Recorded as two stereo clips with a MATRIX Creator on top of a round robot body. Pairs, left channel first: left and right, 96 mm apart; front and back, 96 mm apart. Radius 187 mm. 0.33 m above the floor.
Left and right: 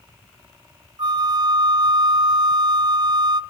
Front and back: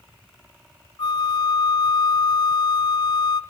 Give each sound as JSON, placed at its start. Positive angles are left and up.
{"t": 1.0, "sound": "a flute", "azimuth_deg": -45, "distance_m": 0.5}